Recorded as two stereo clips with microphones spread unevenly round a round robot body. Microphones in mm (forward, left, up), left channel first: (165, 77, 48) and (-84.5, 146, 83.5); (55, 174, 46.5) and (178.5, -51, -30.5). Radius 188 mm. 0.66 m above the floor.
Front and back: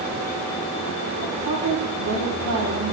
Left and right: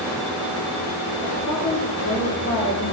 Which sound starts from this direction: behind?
A woman speaking, at 1.2 s.